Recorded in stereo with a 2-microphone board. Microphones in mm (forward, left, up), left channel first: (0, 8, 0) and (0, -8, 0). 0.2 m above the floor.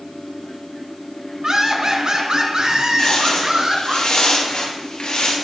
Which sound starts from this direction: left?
Footsteps, at 3.0 s.